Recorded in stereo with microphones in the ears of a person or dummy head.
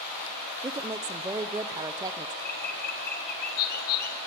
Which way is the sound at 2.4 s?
50° left (ahead or behind).